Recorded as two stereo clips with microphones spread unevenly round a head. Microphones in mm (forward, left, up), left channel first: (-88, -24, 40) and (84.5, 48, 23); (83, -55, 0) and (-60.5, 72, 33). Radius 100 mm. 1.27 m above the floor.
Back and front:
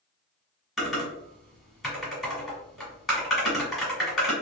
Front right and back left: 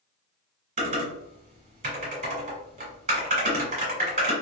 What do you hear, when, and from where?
0.8 s typing on a keyboard: 115° left, 1.5 m